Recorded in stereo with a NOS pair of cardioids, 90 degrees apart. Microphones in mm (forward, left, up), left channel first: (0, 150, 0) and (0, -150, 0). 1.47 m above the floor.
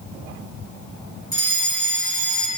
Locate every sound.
1.3 s a fire alarm: 10° left, 3.5 m